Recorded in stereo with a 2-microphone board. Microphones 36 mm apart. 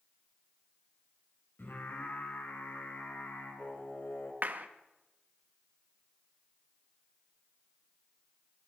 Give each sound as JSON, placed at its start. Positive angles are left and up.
{"t": 1.6, "sound": "singing", "side_deg": 70, "distance_m": 4.5}
{"t": 4.4, "sound": "a clap", "side_deg": -50, "distance_m": 1.3}